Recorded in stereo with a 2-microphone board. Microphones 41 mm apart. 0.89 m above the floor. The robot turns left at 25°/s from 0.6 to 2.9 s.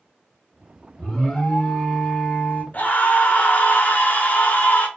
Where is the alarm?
160° left, 1.0 m; by 2.6 s 120° left, 1.0 m.